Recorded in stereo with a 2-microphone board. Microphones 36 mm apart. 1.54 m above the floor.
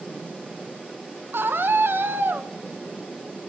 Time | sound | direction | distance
1.3 | a scream | 80° right | 2.0 m